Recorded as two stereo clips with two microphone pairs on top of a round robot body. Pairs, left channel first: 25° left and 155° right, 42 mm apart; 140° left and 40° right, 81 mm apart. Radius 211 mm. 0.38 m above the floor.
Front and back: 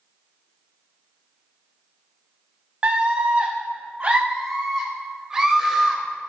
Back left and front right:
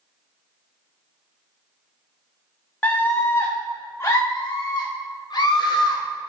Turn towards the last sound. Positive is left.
turn(degrees=135)